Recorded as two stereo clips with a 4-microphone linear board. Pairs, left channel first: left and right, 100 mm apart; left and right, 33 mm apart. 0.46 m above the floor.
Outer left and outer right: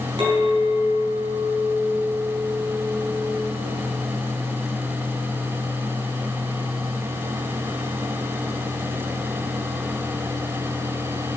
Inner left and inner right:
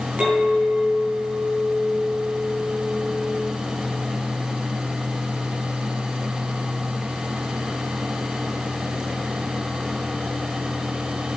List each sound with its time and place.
0.2 s a clink: 50° right (ahead or behind), 2.5 m